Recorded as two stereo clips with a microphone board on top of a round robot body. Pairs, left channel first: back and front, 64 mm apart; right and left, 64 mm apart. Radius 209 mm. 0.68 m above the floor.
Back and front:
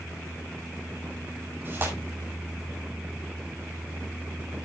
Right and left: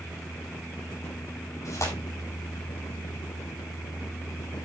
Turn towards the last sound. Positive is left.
turn(degrees=-55)